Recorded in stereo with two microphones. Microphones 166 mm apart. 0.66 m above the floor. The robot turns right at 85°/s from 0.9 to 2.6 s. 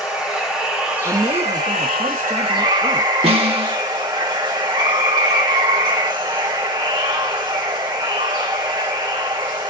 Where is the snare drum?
35° right (ahead or behind), 1.1 m.